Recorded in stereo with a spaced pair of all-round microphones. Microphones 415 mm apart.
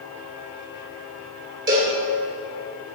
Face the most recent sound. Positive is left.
turn(degrees=-30)  # may be behind; listen again after turning